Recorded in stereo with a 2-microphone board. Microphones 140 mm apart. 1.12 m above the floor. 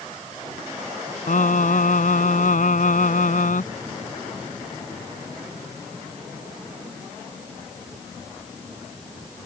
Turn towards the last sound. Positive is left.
turn(degrees=70)  # may be behind; listen again after turning